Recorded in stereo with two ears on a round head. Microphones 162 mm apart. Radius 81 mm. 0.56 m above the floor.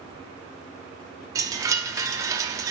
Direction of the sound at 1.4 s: 20° right (ahead or behind).